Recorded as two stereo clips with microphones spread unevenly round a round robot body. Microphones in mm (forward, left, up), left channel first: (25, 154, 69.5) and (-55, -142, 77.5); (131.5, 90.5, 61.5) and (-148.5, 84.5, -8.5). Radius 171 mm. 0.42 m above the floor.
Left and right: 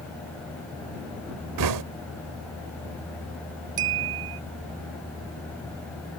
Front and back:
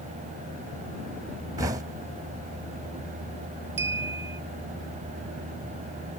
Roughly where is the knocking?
Right.